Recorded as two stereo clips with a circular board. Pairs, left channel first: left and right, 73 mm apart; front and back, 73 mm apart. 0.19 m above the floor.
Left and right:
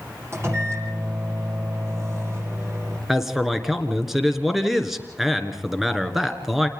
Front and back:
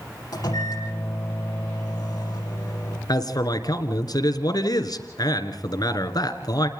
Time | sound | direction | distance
0.3 | a microwave | 35° right | 7 m
3.1 | a man speaking | 5° right | 2.5 m